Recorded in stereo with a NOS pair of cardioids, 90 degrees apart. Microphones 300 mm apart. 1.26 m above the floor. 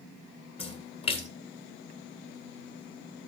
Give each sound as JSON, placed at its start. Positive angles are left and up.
{"t": 0.6, "sound": "a splash", "azimuth_deg": 20, "distance_m": 2.5}